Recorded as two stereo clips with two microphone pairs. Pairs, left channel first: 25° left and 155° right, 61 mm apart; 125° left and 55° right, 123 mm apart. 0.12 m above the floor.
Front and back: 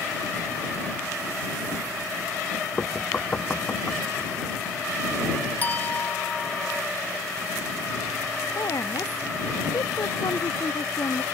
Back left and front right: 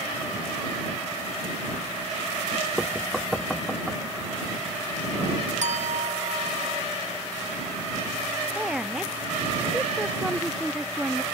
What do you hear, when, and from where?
2.8 s knocking: 35° left
5.6 s a clink: 40° right
8.6 s a woman speaking: 30° left